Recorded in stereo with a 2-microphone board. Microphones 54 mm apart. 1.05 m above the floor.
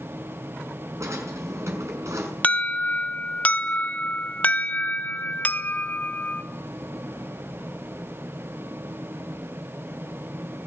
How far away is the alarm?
About 1.4 m.